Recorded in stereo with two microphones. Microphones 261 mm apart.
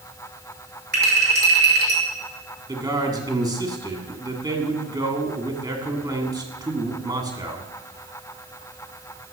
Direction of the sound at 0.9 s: 40° right (ahead or behind).